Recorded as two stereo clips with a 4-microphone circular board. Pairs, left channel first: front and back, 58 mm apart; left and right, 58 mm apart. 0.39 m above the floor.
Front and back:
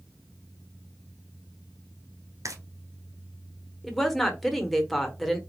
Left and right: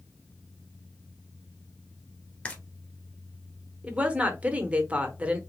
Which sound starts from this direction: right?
A woman speaking, at 3.8 s.